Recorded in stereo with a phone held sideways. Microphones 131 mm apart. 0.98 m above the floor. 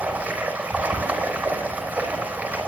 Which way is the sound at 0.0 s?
10° right (ahead or behind).